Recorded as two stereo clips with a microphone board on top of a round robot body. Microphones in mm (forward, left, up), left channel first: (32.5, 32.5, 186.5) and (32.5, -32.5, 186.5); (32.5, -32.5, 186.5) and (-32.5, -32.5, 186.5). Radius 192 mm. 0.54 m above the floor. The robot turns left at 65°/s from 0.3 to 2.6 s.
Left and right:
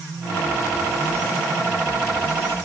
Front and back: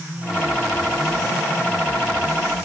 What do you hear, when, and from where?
Only background noise.